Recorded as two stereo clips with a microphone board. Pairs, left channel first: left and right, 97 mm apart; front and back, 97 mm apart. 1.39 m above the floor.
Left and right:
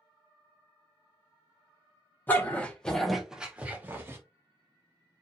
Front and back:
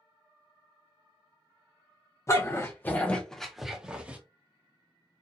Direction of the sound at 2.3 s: 35° left.